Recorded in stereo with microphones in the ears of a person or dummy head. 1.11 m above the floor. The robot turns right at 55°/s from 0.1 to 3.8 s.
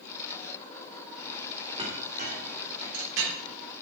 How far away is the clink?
About 2.5 m.